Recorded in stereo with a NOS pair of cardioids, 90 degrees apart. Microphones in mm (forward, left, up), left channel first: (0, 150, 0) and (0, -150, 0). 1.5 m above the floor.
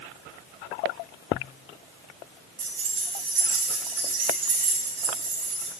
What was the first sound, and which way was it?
Keys jangling, 70° right.